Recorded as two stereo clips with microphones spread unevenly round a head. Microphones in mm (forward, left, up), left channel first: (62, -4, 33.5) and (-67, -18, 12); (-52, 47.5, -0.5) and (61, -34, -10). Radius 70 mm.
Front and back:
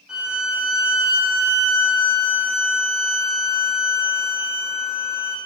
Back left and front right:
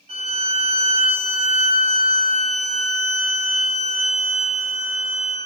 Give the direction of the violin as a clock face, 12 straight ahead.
3 o'clock.